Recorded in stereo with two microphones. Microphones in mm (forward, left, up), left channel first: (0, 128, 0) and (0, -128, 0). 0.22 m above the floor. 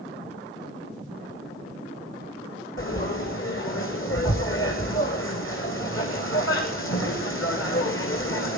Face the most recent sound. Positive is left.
turn(degrees=60)  # may be behind; listen again after turning